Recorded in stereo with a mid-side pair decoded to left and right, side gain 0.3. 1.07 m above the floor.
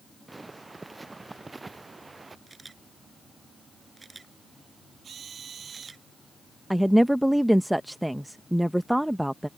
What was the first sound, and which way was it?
Footsteps, 25° right.